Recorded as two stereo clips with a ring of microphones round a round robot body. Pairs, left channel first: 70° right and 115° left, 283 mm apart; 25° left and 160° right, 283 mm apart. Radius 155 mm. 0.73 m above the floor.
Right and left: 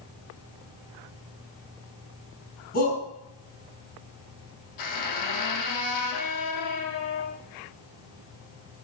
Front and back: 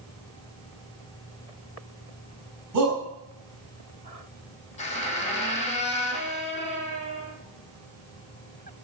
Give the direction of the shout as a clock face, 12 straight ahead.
4 o'clock.